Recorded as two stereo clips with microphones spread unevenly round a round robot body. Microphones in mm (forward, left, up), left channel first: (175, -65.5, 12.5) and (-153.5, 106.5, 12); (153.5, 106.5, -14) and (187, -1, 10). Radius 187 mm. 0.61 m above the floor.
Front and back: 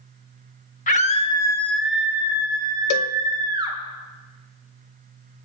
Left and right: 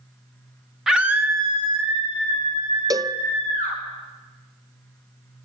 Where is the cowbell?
5° right, 0.6 m.